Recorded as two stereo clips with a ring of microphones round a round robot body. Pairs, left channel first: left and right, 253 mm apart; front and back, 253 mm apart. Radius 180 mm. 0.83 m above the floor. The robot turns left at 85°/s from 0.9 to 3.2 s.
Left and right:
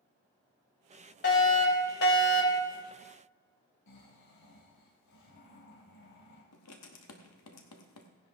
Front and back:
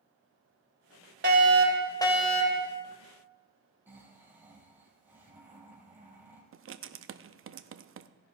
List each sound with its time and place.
1.2 s a fire alarm: 140° left, 2.5 m; by 2.7 s 20° left, 2.5 m
3.9 s snoring: 95° left, 4 m
6.5 s writing: 135° left, 0.7 m